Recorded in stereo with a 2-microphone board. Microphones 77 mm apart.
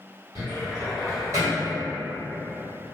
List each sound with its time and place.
0.3 s a cupboard door: 45° right (ahead or behind), 1.5 m